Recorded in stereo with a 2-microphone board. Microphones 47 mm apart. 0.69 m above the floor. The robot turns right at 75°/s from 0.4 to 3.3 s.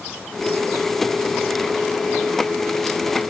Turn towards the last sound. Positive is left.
No sound to turn to.